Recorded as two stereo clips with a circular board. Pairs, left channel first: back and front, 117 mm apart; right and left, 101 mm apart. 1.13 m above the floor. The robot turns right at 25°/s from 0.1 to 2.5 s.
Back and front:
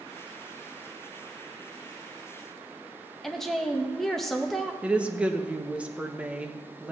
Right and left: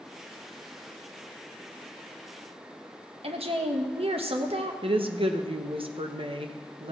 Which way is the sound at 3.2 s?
90° left.